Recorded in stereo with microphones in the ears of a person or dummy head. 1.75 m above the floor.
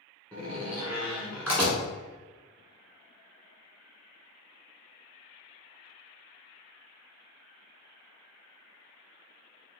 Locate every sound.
0.3 s a door slam: 5° right (ahead or behind), 1.0 m